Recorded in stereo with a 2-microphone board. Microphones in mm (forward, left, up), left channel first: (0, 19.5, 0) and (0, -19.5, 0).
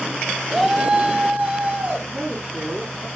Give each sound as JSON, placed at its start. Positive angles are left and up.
{"t": 0.5, "sound": "a shout", "side_deg": -10, "distance_m": 1.2}
{"t": 2.1, "sound": "a woman speaking", "side_deg": -50, "distance_m": 3.5}